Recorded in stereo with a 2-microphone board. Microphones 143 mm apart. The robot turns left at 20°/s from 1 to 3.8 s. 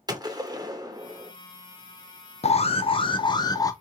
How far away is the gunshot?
About 0.7 m.